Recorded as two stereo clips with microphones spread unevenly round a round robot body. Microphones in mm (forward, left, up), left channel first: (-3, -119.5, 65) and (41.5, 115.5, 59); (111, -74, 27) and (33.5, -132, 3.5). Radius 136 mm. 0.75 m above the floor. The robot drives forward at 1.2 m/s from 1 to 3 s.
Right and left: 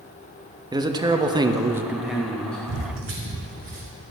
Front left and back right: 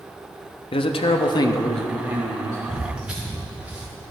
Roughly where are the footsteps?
Left.